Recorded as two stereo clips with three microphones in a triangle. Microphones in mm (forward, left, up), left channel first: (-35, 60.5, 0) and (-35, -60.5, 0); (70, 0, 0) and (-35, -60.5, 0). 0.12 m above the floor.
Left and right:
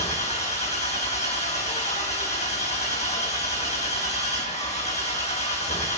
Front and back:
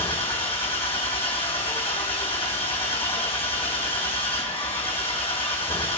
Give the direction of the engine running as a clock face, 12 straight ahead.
10 o'clock.